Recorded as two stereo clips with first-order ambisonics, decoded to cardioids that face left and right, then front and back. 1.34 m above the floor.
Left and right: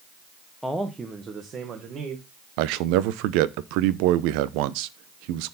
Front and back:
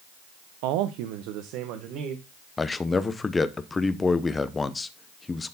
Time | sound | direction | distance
0.6 | a man speaking | 175° left | 0.7 m
2.6 | a man speaking | 75° right | 0.7 m